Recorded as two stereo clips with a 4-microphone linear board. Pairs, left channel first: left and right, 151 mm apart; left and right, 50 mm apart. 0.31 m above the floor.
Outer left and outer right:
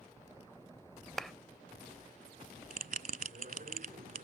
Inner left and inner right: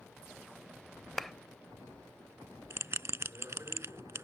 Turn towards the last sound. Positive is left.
turn(degrees=-70)  # may be behind; listen again after turning